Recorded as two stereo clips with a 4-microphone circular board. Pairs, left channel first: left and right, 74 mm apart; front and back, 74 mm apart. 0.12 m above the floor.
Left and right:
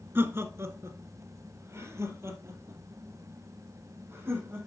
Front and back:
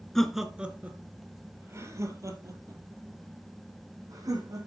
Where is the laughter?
80° right, 1.2 m; by 4.7 s 145° right, 4.5 m.